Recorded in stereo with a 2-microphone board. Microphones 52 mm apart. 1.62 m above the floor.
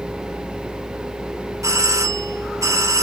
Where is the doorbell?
80° right.